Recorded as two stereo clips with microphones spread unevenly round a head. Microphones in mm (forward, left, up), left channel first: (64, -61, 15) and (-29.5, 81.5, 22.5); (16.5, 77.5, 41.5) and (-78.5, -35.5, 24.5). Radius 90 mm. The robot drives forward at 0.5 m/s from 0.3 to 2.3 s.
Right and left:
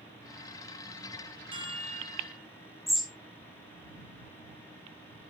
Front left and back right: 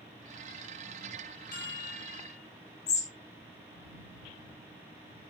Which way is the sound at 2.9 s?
35° left.